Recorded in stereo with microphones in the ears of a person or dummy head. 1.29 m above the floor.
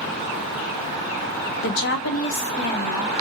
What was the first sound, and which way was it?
A woman speaking, 70° left (ahead or behind).